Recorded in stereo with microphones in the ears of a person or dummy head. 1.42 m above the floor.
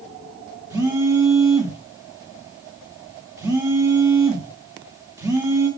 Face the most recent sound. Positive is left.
turn(degrees=-15)  # may be behind; listen again after turning